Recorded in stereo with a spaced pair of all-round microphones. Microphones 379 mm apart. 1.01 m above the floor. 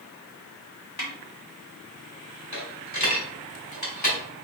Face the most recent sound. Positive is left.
turn(degrees=75)  # may be behind; listen again after turning